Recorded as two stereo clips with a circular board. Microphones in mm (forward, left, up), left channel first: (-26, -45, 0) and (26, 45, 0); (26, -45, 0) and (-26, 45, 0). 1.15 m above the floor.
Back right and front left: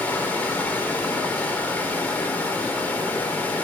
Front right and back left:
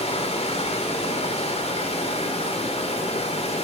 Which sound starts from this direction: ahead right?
Running water, at 0.0 s.